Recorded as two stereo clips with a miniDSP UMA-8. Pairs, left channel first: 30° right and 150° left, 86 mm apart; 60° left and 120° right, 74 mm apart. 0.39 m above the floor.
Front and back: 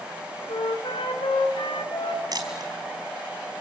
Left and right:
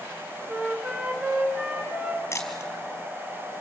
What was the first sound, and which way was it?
A flute, 45° right.